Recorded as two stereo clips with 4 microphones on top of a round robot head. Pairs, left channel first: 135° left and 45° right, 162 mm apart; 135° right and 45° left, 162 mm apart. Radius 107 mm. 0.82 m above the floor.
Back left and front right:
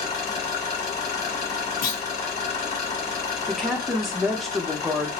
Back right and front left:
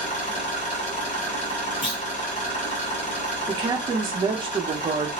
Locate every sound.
0.0 s an engine running: straight behind, 1.3 m
1.8 s a clunk: 165° left, 0.8 m
3.5 s a woman speaking: 50° left, 0.7 m